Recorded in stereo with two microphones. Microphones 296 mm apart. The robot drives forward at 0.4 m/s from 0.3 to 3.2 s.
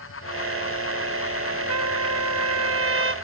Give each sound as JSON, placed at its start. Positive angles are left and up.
{"t": 1.7, "sound": "a trumpet", "side_deg": -60, "distance_m": 0.5}